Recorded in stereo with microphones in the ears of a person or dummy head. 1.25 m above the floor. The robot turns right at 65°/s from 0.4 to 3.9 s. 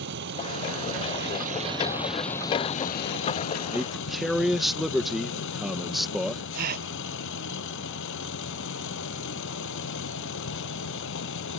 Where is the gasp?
55° right (ahead or behind).